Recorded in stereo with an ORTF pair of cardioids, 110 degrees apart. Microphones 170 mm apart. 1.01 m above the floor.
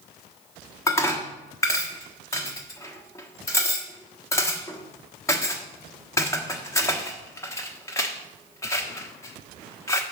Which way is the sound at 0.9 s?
15° left.